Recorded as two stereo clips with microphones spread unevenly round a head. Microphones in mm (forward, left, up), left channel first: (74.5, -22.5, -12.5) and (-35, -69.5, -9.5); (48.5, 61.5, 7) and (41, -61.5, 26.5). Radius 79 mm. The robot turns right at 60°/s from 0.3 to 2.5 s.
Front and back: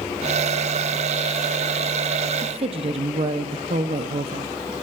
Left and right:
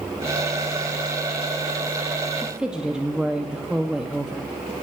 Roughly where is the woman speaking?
Behind.